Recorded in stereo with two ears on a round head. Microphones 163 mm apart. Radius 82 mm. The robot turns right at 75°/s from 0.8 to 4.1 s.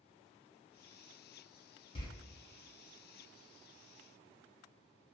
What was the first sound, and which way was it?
A door slam, 30° left (ahead or behind).